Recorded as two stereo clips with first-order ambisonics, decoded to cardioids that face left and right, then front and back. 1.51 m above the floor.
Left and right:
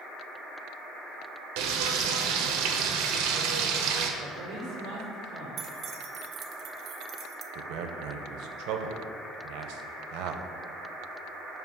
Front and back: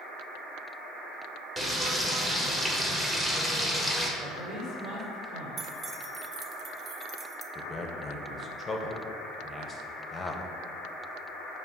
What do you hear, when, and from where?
1.6 s frying: 95° right, 0.9 m
4.2 s a man speaking: 130° right, 2.5 m
5.6 s keys jangling: 125° right, 0.6 m
7.5 s a man speaking: 75° right, 0.8 m